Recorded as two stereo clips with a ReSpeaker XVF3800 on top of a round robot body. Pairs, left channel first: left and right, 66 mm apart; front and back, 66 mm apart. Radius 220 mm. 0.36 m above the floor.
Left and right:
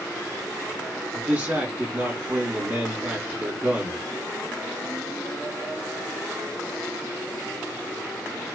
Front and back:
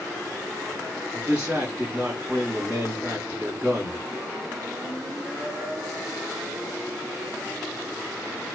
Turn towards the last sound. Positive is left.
turn(degrees=-130)